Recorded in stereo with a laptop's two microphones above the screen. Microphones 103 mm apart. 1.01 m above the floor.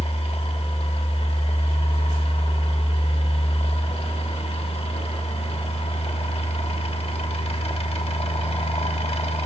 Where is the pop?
I don't hear a pop.